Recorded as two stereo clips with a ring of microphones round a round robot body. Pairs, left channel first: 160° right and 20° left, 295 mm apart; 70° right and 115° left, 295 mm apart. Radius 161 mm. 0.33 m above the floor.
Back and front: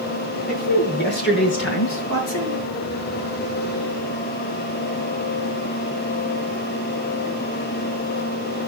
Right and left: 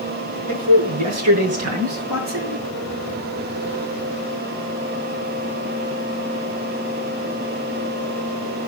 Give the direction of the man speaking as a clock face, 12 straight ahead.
7 o'clock.